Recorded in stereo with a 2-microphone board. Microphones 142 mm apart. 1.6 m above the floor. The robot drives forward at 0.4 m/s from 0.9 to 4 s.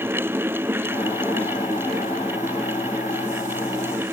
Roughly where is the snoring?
No snoring in this recording.